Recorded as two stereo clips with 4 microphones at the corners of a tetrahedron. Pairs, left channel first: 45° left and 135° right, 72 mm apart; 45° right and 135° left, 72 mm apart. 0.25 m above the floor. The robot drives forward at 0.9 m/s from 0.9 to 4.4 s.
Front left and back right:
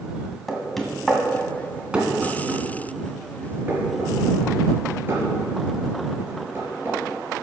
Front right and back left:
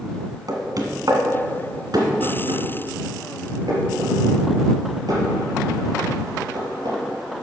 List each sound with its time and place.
0.5 s knocking: 130° left, 1.7 m; by 7.0 s 165° left, 4.5 m